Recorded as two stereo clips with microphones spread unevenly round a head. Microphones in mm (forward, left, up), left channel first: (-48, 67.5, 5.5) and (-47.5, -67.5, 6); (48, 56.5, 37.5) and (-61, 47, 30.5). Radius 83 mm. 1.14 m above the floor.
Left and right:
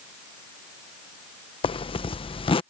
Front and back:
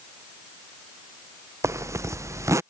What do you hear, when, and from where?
1.6 s a zipper: 130° left